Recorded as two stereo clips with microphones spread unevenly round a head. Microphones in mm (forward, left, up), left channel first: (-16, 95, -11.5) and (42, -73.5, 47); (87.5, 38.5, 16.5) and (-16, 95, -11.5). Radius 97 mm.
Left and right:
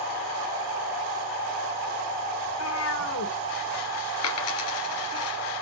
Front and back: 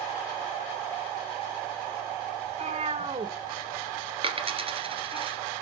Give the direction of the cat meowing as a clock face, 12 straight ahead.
8 o'clock.